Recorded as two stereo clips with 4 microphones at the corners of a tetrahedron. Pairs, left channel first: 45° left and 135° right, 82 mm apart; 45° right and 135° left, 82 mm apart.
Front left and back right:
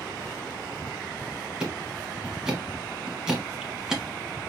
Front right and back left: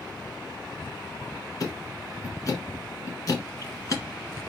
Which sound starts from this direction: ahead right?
Ticking, at 1.6 s.